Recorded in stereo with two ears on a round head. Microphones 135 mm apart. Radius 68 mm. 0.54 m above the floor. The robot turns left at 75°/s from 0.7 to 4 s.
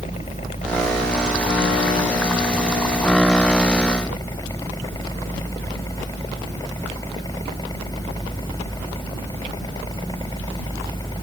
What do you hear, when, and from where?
0.0 s a helicopter: 40° left (ahead or behind); by 11.2 s 25° left (ahead or behind)